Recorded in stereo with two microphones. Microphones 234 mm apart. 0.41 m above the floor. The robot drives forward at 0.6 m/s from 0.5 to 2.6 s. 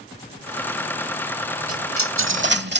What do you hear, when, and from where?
1.7 s a dropped coin: 85° right; by 2.8 s 50° right (ahead or behind)